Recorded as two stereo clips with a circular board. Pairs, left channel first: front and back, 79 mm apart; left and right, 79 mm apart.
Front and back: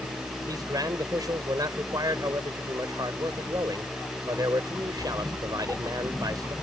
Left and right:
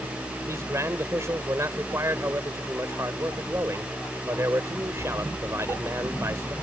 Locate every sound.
0.5 s a man speaking: 145° right